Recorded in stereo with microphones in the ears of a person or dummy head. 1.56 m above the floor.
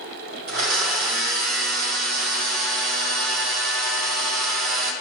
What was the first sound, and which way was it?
A blender, 50° right (ahead or behind).